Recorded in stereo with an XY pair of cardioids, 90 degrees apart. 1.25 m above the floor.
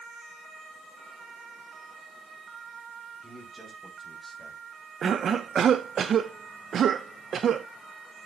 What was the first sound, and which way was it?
A man speaking, 15° right.